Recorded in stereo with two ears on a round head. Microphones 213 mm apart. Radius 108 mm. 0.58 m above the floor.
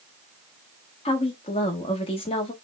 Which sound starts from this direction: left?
A woman speaking, at 1.1 s.